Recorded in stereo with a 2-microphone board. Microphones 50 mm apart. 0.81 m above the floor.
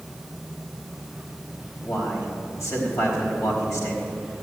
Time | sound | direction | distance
1.8 | a man speaking | 75° left (ahead or behind) | 4.5 m